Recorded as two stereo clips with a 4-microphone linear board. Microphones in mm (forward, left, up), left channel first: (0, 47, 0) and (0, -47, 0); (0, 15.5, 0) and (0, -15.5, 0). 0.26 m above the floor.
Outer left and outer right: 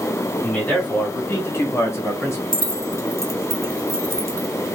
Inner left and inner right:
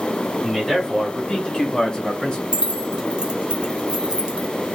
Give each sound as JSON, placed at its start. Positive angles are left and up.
{"t": 0.4, "sound": "a man speaking", "side_deg": 10, "distance_m": 1.6}
{"t": 2.5, "sound": "keys jangling", "side_deg": -30, "distance_m": 0.7}